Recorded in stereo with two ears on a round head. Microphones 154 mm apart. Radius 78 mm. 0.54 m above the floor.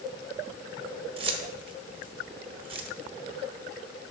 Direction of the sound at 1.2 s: 30° right (ahead or behind).